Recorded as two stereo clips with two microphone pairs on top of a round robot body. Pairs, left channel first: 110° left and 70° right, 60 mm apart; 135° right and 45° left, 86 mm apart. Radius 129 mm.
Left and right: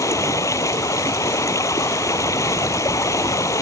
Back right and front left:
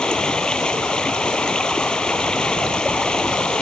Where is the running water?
145° left.